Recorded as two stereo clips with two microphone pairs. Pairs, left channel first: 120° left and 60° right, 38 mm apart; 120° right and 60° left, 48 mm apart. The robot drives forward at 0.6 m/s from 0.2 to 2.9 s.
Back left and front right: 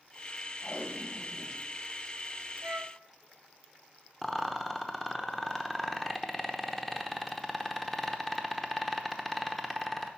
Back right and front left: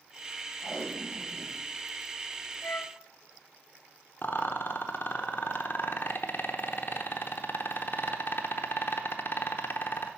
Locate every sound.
0.6 s tape being pulled: 160° left, 1.9 m; by 1.6 s 165° left, 2.5 m
2.6 s a flute: 80° right, 0.6 m; by 3.0 s 100° right, 0.6 m
4.2 s a rattle: 160° right, 0.8 m